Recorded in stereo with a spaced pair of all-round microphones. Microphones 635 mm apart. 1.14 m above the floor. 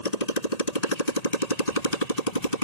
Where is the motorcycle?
85° left.